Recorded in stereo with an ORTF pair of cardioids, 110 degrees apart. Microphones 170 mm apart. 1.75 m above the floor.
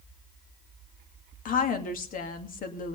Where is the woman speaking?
55° left, 2.5 m.